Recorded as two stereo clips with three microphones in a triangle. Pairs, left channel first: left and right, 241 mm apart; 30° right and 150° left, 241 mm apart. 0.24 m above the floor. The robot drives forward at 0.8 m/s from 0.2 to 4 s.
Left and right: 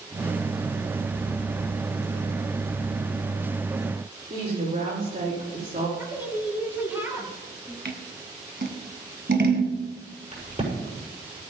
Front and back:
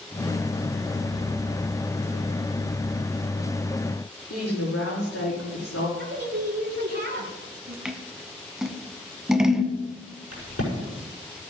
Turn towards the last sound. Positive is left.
turn(degrees=-30)